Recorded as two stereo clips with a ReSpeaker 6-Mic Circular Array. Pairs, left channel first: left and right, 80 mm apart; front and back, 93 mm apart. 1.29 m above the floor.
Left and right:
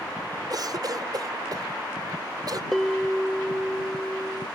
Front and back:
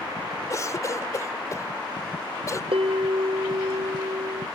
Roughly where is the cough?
Ahead right.